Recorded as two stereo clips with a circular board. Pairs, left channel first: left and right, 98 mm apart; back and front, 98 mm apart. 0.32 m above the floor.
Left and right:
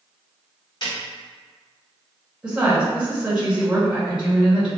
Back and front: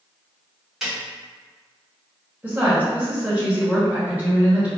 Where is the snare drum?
80° left, 1.7 m.